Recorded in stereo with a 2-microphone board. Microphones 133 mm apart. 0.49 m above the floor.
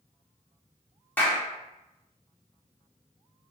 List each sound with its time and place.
1.2 s a clap: 15° left (ahead or behind), 0.9 m